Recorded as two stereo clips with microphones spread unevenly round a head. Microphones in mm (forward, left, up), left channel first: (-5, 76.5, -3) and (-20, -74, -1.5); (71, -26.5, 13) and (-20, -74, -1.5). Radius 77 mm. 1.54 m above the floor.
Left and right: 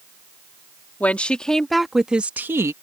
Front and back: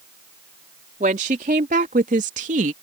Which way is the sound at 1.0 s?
165° left.